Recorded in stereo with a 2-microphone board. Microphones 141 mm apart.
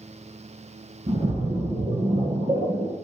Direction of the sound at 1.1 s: 50° right (ahead or behind).